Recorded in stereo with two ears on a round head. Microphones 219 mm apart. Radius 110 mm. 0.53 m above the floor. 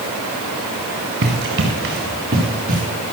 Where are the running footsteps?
45° right (ahead or behind), 5 m; by 2.8 s 35° right (ahead or behind), 5 m.